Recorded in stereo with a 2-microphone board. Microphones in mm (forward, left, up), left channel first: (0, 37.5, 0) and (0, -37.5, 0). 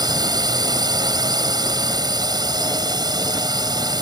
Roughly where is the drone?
Right.